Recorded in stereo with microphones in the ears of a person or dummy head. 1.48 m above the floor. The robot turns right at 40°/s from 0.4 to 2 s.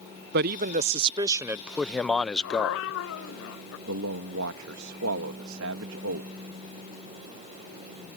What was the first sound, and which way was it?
A man speaking, 55° right.